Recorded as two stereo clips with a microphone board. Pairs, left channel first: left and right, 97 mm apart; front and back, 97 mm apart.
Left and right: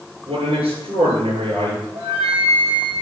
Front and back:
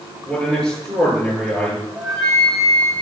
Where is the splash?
No splash in this recording.